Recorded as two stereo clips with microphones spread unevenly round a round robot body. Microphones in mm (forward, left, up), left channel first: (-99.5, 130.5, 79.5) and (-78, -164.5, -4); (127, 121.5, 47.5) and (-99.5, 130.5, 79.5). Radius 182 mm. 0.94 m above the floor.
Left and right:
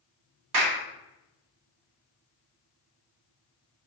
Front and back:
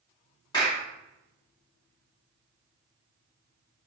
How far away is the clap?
About 1.8 m.